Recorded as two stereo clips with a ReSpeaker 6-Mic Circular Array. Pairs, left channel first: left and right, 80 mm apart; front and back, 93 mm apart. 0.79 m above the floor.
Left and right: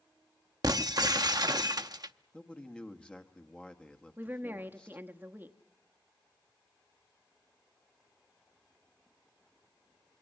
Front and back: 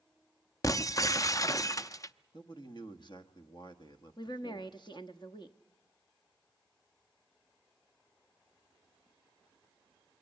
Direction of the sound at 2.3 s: 15° left.